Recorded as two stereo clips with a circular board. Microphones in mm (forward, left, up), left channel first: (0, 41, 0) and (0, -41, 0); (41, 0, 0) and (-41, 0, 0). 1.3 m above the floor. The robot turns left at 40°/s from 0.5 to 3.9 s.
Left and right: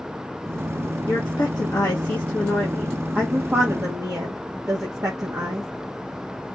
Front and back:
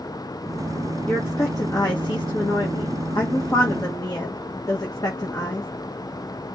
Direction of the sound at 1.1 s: 70° left.